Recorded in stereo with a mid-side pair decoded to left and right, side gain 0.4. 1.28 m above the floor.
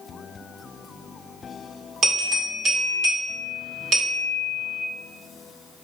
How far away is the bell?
About 1.8 m.